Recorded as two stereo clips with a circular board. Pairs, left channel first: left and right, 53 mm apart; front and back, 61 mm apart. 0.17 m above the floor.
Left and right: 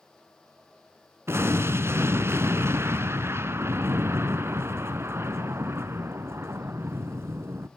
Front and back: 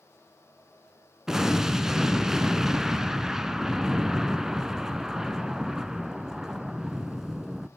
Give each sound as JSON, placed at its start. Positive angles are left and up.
{"t": 1.3, "sound": "an explosion", "azimuth_deg": -100, "distance_m": 0.6}